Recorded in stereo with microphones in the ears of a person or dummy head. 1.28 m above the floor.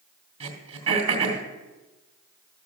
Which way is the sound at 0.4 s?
35° right (ahead or behind).